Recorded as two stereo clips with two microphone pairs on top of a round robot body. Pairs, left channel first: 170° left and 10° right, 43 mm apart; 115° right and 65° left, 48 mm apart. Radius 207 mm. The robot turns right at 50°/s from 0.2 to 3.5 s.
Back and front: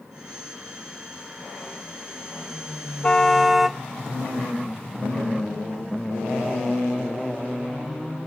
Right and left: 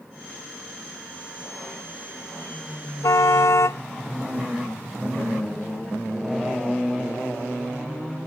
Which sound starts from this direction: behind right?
A car horn, at 3.0 s.